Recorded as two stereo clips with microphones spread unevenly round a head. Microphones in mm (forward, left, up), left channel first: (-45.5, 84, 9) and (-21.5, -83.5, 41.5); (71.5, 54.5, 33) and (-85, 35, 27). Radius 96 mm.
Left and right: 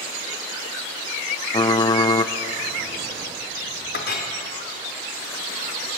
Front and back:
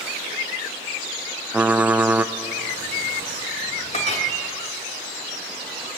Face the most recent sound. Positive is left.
turn(degrees=55)